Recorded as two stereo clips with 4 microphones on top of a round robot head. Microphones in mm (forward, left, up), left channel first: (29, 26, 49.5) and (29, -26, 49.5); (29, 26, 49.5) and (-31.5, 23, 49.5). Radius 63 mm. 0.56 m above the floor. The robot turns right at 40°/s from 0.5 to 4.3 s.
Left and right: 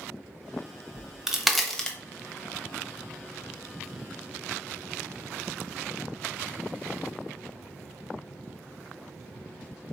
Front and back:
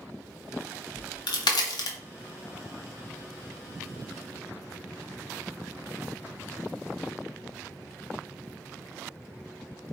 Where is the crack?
20° right, 1.0 m; by 2.0 s 20° left, 1.0 m.